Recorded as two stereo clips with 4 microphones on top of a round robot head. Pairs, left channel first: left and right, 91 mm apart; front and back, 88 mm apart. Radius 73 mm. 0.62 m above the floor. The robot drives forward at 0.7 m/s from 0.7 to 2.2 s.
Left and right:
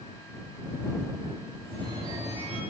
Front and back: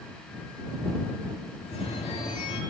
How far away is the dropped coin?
No dropped coin in this recording.